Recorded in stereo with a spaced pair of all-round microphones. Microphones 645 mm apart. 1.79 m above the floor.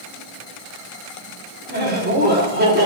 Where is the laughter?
15° right (ahead or behind), 5.5 m.